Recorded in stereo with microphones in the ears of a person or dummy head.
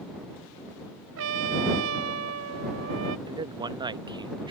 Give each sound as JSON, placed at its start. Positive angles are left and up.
{"t": 1.2, "sound": "a trumpet", "side_deg": -65}
{"t": 3.3, "sound": "a man speaking", "side_deg": -25}